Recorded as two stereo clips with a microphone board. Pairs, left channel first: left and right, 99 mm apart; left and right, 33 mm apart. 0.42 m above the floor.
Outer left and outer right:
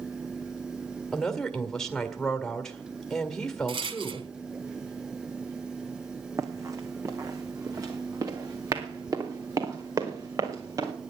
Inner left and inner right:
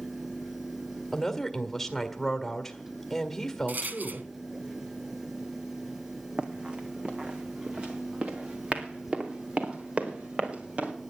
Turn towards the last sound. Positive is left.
turn(degrees=-40)  # may be behind; listen again after turning